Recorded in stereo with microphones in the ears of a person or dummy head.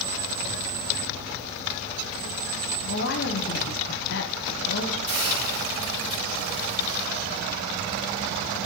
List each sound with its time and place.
2.8 s a woman speaking: 50° left (ahead or behind), 0.8 m
5.1 s a hiss: 30° right (ahead or behind), 3.5 m